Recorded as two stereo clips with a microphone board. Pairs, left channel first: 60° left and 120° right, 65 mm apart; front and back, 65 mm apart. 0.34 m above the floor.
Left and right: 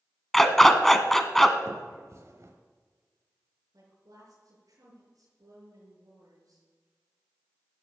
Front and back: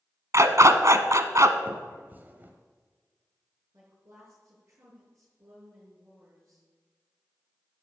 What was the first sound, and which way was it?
A dog barking, 145° left.